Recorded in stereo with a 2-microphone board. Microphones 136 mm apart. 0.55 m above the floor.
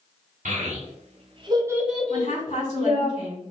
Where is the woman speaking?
55° left (ahead or behind), 1.8 m.